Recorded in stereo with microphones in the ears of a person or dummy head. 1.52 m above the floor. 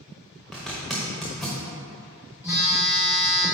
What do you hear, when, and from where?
0.5 s a zipper: centre (ahead or behind), 1.0 m
2.4 s a phone buzzing: 10° right (ahead or behind), 1.7 m